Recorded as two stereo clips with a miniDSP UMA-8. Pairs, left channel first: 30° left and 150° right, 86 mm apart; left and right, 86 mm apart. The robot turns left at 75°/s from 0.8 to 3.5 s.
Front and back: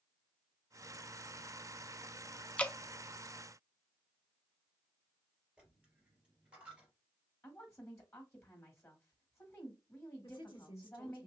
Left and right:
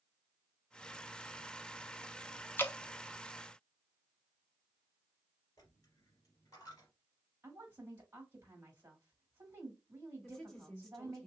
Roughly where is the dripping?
Left.